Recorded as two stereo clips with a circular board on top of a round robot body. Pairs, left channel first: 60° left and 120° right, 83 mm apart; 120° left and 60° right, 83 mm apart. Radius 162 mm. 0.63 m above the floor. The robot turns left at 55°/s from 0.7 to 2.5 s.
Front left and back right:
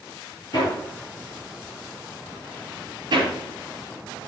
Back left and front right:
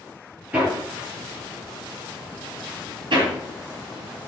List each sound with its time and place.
0.5 s hammering: 15° left, 4 m; by 3.3 s 85° right, 4 m